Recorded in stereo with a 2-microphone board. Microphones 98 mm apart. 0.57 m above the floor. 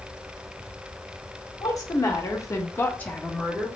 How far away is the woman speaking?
About 1.4 m.